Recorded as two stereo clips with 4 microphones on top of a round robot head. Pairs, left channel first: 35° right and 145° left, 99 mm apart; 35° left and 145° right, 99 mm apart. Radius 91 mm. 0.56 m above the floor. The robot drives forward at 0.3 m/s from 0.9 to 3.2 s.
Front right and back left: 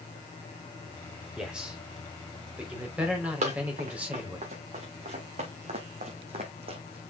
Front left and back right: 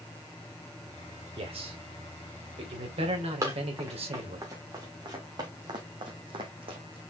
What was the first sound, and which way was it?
A man speaking, 135° right.